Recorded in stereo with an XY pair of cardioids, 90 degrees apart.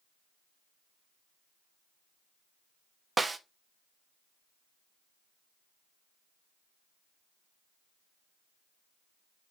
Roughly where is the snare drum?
Ahead right.